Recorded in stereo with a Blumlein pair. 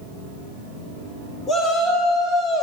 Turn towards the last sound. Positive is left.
turn(degrees=-5)